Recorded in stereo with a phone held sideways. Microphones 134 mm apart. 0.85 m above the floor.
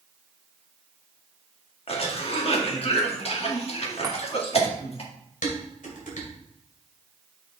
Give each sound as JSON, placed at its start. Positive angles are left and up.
{"t": 1.9, "sound": "a cough", "side_deg": 50, "distance_m": 1.5}
{"t": 4.0, "sound": "a chime", "side_deg": -25, "distance_m": 1.4}
{"t": 5.4, "sound": "dishes clattering", "side_deg": 85, "distance_m": 2.5}